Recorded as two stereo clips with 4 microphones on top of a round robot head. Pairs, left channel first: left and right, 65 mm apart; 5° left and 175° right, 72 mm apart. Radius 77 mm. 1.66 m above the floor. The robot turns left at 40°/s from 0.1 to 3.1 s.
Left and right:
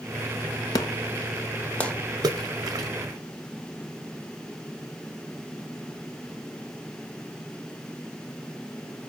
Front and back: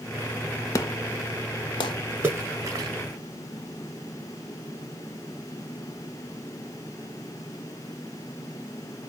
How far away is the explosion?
About 0.8 m.